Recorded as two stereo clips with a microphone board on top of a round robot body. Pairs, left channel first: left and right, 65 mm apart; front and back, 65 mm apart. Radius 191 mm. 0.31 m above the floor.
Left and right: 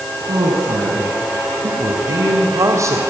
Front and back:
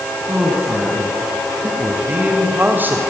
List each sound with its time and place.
0.3 s a man speaking: 110° right, 4.5 m; by 3.0 s 125° right, 2 m